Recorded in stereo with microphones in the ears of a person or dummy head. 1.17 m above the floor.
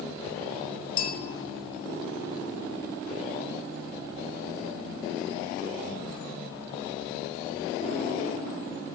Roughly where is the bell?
Left.